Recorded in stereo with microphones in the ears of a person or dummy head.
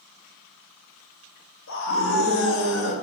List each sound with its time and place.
1.7 s a scream: 65° left (ahead or behind), 1.8 m; by 3.0 s 80° left, 2.5 m